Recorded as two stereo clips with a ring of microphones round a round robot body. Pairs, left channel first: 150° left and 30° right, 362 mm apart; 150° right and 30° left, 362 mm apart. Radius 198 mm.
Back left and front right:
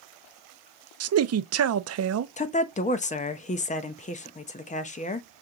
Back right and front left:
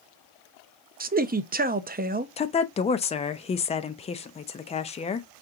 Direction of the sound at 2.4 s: 170° left.